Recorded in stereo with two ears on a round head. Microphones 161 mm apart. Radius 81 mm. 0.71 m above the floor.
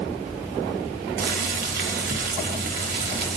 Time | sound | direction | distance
1.2 | boiling | 55° right (ahead or behind) | 1.4 m